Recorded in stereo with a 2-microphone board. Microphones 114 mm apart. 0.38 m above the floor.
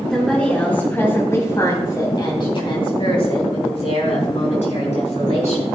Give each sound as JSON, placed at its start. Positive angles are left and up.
{"t": 0.1, "sound": "a woman speaking", "side_deg": 5, "distance_m": 3.0}